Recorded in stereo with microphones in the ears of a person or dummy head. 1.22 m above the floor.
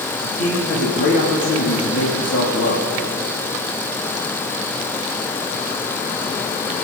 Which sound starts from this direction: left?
A man speaking, at 0.2 s.